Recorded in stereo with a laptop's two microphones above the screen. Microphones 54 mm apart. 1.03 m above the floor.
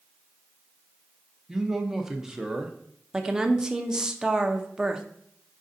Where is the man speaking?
5° right (ahead or behind), 0.7 m.